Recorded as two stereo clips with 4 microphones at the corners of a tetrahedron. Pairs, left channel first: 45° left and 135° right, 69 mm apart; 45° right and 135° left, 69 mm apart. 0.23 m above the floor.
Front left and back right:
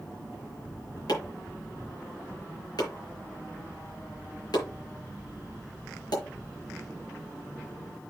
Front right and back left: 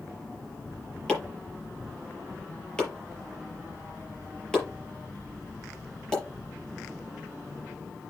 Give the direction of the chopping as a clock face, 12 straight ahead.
11 o'clock.